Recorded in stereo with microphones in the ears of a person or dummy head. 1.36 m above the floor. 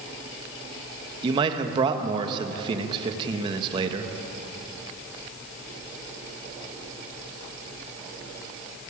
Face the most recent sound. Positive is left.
turn(degrees=-30)  # may be behind; listen again after turning